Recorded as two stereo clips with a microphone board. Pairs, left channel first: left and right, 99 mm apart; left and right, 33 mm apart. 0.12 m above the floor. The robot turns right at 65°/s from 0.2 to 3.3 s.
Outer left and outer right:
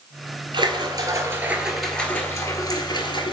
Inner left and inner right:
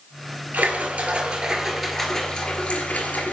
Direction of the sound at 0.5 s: 80° right.